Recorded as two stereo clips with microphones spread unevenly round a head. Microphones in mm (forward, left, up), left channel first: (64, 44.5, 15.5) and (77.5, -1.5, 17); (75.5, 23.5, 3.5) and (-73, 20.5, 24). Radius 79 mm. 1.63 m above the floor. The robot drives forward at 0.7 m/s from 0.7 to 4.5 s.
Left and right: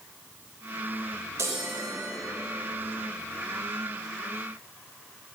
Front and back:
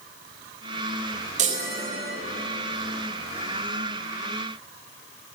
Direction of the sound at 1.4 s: 130° right.